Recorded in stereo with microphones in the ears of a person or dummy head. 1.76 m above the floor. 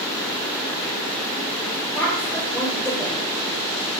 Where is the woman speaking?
5° left (ahead or behind), 1.6 m.